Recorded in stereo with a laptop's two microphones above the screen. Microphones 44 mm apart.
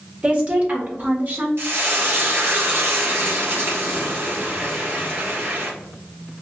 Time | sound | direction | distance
0.2 | a woman speaking | 35° right (ahead or behind) | 1.8 m
1.6 | frying | 65° right (ahead or behind) | 1.5 m